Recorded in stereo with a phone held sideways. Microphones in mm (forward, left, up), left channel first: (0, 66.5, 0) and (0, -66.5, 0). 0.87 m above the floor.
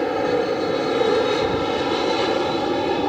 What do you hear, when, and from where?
0.0 s an aircraft: centre (ahead or behind)